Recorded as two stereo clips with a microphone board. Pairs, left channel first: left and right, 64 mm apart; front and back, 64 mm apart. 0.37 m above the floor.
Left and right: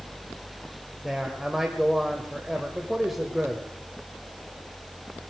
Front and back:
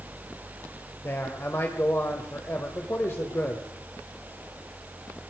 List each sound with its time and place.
1.0 s a man speaking: 5° right, 1.5 m